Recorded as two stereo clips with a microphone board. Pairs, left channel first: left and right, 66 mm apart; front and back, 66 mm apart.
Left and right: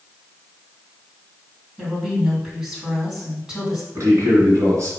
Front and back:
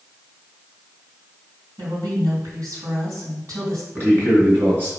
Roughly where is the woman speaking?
Behind.